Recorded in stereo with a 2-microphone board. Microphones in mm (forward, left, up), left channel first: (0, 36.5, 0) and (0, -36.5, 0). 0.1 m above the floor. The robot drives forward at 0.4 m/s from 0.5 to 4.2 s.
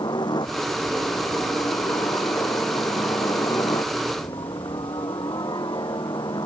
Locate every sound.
0.0 s a helicopter: 75° left (ahead or behind)